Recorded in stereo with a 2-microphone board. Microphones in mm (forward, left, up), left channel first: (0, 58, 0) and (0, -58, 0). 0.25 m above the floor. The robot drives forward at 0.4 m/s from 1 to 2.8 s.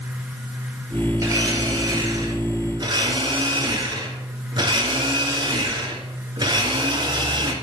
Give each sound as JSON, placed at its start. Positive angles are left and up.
{"t": 1.2, "sound": "a blender", "side_deg": -30, "distance_m": 2.5}